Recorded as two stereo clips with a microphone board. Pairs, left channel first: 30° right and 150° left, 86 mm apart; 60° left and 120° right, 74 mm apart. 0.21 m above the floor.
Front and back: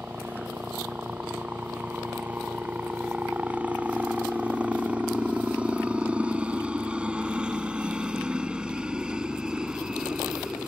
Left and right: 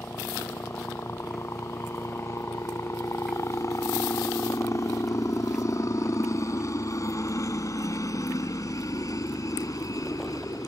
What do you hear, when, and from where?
0.0 s a helicopter: 90° left; by 10.7 s 70° left